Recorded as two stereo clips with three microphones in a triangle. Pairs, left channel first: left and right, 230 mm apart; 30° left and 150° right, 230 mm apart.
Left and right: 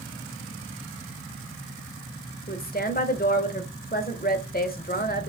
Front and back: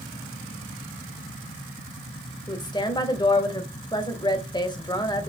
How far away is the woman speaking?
About 1.0 m.